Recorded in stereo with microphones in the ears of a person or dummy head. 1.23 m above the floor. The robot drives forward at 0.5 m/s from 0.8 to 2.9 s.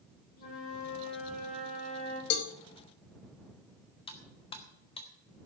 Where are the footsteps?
No footsteps in this recording.